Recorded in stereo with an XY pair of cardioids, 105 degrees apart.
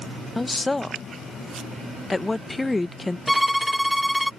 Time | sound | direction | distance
0.3 | a woman speaking | 15° left | ?
3.3 | a violin | straight ahead | ?